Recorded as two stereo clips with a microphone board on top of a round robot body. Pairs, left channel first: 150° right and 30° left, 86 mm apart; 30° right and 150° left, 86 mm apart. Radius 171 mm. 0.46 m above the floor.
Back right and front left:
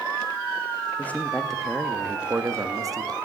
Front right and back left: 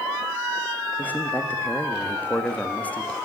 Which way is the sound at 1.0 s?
90° right.